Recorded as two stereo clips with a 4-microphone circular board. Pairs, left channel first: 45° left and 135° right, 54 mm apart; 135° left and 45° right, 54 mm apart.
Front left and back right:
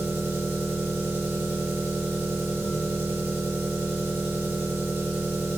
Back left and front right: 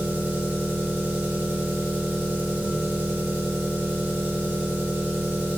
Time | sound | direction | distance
0.0 | an engine running | 85° right | 1.3 m